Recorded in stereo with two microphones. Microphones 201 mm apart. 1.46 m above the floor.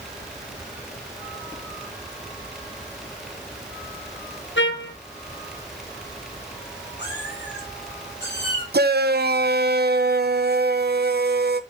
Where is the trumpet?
70° left (ahead or behind), 1.1 m.